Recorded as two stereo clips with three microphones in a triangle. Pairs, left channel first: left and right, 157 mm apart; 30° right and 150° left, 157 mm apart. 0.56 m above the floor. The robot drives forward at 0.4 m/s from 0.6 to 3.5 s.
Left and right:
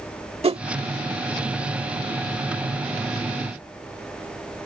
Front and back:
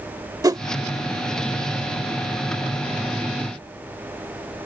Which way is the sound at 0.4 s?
140° right.